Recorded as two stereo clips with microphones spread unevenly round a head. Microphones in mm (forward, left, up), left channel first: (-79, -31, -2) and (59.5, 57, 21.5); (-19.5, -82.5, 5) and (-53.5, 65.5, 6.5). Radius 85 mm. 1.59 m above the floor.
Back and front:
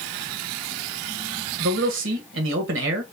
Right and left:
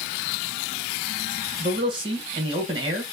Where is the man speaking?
40° left, 1.5 m.